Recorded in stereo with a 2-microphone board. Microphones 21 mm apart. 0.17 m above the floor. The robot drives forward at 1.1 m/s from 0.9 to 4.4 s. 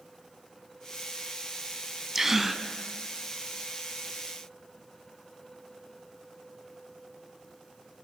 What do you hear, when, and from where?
2.1 s a gasp: 20° right (ahead or behind), 0.6 m; by 2.6 s 10° right (ahead or behind), 0.9 m